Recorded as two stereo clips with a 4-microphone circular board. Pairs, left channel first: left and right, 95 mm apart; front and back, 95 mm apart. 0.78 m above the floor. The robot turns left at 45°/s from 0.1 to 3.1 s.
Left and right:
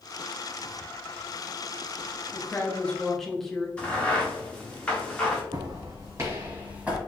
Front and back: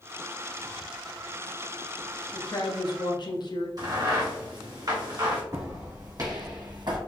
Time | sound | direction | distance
2.3 | a woman speaking | 40° left | 0.8 m
3.8 | a crack | 160° left | 1.1 m
5.5 | footsteps | 130° right | 1.8 m